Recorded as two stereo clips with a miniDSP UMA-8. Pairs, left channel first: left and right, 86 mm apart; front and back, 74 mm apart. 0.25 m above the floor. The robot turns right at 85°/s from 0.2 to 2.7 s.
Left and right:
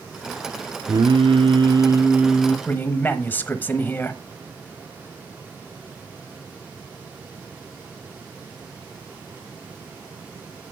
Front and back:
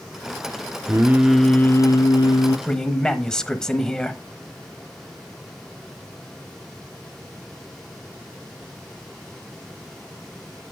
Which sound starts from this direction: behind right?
Singing, at 0.9 s.